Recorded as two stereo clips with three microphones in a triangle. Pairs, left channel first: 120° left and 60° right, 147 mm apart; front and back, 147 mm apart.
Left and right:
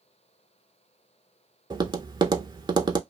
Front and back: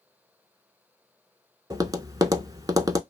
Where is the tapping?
115° right, 0.5 m.